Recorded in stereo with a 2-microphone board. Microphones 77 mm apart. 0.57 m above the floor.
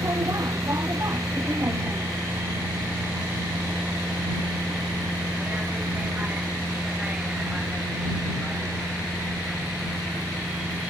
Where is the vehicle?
45° right (ahead or behind); by 10.9 s 5° right (ahead or behind).